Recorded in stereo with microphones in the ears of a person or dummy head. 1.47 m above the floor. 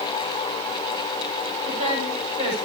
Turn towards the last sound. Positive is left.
turn(degrees=-35)  # may be behind; listen again after turning